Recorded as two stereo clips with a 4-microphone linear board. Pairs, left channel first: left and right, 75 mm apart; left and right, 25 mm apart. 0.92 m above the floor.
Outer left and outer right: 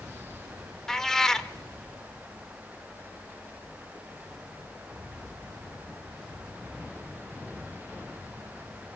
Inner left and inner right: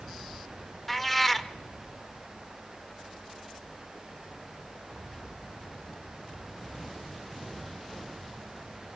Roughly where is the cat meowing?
Centre.